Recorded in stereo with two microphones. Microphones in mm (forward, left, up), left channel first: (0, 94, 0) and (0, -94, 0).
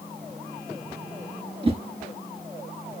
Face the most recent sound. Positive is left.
turn(degrees=-30)  # may be behind; listen again after turning